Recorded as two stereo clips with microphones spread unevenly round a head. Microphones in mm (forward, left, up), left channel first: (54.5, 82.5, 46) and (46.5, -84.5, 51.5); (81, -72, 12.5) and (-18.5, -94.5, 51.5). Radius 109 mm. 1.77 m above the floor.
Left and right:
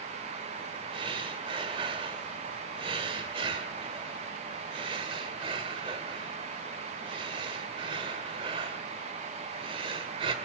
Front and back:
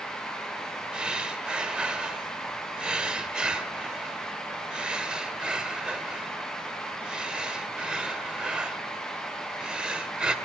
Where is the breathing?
135° right, 1.7 m.